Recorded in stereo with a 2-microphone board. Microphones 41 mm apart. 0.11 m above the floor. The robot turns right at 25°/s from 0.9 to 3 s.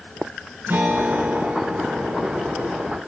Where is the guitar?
105° right, 2.5 m; by 2.8 s 60° right, 2.5 m.